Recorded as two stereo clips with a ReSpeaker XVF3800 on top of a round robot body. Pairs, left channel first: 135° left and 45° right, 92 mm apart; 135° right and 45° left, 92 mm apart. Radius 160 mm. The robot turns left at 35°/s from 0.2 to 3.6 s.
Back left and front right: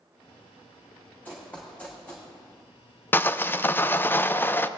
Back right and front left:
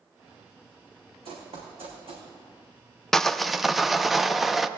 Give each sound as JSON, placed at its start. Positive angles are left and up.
{"t": 1.2, "sound": "running footsteps", "azimuth_deg": 60, "distance_m": 2.5}
{"t": 3.1, "sound": "sawing", "azimuth_deg": 150, "distance_m": 0.6}